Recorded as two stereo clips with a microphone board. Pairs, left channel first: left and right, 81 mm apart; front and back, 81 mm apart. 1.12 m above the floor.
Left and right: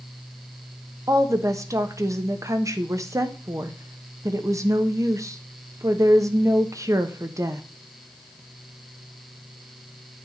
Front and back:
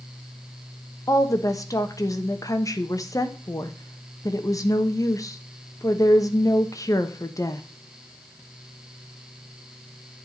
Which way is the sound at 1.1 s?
45° right.